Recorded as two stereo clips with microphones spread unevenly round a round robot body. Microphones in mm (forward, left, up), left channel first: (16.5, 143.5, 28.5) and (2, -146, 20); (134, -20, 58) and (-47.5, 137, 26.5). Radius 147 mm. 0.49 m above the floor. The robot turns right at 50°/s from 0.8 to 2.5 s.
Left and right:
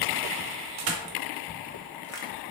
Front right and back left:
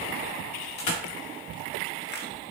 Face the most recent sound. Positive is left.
turn(degrees=25)